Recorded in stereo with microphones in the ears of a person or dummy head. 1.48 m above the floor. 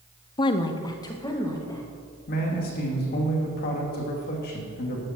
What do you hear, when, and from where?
0.4 s a woman speaking: 25° left (ahead or behind), 0.7 m; by 1.8 s 15° left (ahead or behind), 2.5 m
2.3 s a man speaking: 45° left (ahead or behind), 2.5 m